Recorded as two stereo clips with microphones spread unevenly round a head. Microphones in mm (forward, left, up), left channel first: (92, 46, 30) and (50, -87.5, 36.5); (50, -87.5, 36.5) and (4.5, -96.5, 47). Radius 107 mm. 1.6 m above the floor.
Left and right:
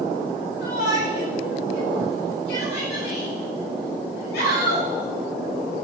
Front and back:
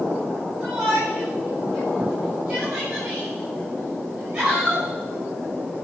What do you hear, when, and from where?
0.6 s a shout: 105° left, 9 m